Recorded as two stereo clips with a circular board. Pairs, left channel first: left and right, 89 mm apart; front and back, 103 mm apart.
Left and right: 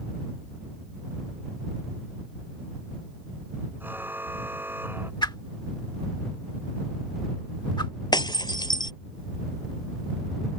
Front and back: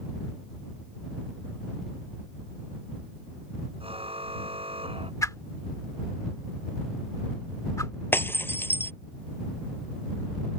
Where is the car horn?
160° right; by 5.1 s 155° right.